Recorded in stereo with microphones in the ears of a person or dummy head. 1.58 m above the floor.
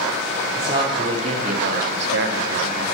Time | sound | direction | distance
0.6 | a man speaking | 25° right (ahead or behind) | 1.4 m